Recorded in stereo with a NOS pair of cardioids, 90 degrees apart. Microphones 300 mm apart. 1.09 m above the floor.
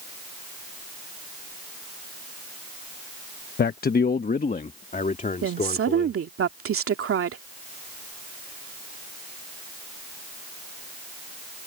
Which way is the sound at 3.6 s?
35° left.